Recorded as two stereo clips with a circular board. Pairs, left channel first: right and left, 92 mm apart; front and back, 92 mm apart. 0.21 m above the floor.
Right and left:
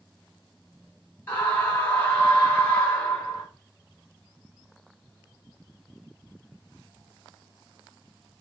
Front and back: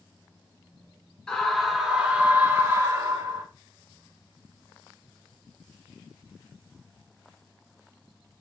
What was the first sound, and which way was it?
A scream, 65° right.